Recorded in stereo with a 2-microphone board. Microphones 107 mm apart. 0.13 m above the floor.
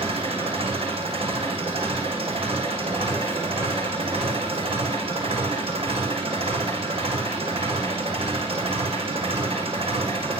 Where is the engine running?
65° right (ahead or behind), 7 m.